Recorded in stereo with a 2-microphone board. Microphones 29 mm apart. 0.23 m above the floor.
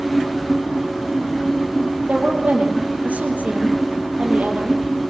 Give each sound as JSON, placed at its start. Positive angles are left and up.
{"t": 2.1, "sound": "a woman speaking", "side_deg": -70, "distance_m": 5.5}